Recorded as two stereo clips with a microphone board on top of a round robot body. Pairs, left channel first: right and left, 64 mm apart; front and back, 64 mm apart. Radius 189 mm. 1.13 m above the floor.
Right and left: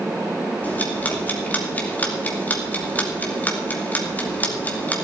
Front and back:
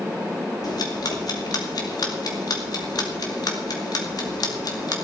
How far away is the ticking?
About 2.5 m.